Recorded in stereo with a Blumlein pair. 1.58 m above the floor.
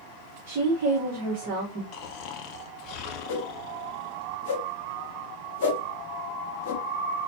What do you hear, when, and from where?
0.5 s a woman speaking: 40° right, 1.6 m
1.9 s snoring: 40° left, 0.9 m
3.3 s a whoosh: 45° left, 2 m